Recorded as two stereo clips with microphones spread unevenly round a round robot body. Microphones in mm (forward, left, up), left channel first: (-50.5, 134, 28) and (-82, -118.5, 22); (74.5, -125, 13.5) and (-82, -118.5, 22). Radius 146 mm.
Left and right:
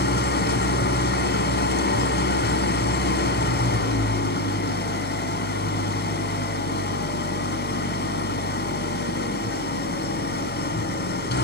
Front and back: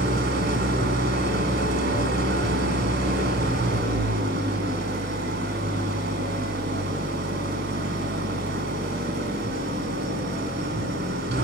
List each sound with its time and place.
0.0 s an engine running: 130° left, 2.5 m